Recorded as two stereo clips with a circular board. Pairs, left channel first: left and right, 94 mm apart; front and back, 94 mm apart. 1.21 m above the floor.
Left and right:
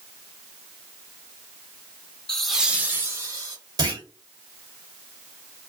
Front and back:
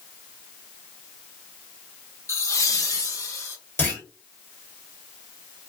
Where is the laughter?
15° left, 0.7 m; by 3.6 s 50° right, 1.1 m.